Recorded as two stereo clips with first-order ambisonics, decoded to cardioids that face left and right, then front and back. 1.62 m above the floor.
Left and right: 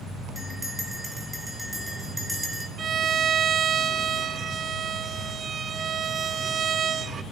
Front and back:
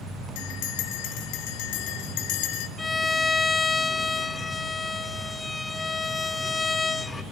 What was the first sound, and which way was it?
A bell, 5° right.